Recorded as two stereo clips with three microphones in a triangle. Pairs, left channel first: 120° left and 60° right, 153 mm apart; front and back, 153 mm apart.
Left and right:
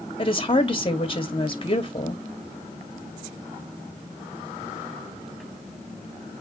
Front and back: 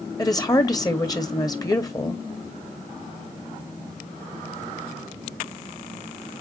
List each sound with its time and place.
0.2 s a woman speaking: 65° left, 2.5 m